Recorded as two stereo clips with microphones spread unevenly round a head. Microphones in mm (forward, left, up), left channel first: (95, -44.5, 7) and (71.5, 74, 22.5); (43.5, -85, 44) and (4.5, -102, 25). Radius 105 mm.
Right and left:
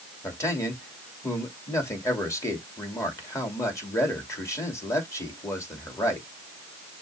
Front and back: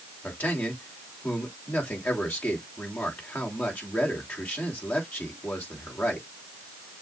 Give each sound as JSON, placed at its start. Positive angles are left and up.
{"t": 0.2, "sound": "a man speaking", "azimuth_deg": -15, "distance_m": 2.5}